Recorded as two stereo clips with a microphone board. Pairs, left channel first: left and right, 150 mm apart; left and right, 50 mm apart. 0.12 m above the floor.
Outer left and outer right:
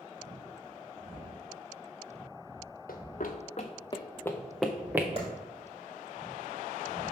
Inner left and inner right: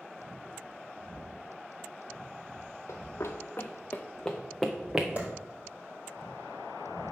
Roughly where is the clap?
Right.